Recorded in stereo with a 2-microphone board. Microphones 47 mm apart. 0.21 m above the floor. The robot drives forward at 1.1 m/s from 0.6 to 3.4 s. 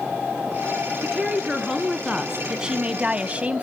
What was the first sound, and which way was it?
A woman speaking, 10° right (ahead or behind).